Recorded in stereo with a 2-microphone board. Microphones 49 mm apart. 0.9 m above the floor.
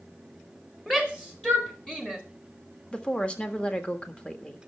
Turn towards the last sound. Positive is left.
turn(degrees=20)  # may be behind; listen again after turning